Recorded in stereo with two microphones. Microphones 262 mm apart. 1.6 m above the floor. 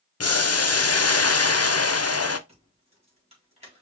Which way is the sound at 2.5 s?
20° right (ahead or behind).